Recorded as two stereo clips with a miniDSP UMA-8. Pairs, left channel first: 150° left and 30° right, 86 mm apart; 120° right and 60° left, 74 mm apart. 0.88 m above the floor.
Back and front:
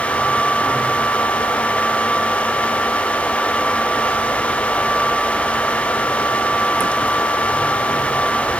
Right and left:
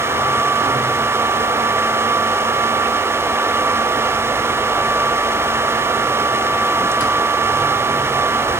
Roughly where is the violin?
No violin in this recording.